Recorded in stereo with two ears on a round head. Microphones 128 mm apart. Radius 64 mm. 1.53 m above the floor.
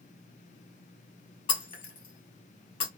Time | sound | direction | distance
1.5 | breaking glass | 35° left (ahead or behind) | 1.8 m